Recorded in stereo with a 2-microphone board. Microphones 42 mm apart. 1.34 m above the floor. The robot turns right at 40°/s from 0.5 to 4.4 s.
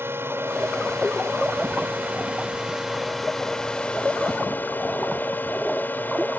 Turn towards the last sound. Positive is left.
turn(degrees=50)